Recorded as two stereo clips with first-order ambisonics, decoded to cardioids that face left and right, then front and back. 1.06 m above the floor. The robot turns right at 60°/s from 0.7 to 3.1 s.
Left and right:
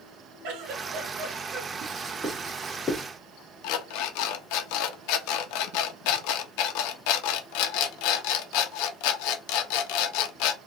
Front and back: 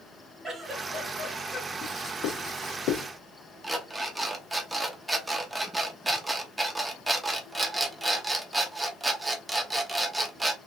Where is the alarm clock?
95° left, 0.6 m.